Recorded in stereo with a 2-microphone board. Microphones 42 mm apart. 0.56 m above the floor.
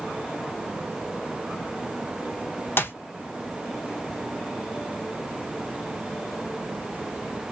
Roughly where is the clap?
Left.